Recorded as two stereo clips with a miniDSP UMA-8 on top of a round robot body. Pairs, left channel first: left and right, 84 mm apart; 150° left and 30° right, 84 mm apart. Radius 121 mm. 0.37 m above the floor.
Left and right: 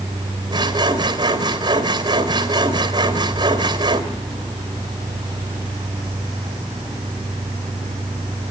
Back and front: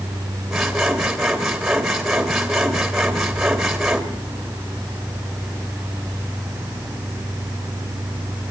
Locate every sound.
0.5 s sawing: 115° right, 3 m